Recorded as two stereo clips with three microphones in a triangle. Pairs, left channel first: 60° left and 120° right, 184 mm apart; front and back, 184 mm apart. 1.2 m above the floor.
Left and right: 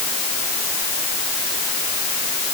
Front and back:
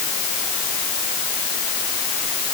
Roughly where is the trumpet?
No trumpet in this recording.